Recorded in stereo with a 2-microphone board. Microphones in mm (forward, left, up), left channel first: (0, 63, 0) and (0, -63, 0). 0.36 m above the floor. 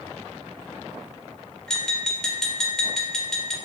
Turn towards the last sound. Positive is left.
turn(degrees=5)  # may be behind; listen again after turning